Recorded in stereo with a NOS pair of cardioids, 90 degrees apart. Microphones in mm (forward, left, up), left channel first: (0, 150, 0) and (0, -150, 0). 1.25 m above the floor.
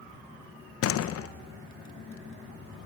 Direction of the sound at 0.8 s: 55° left.